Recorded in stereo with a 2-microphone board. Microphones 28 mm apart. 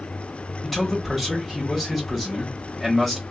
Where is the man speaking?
5° left (ahead or behind), 1.3 m.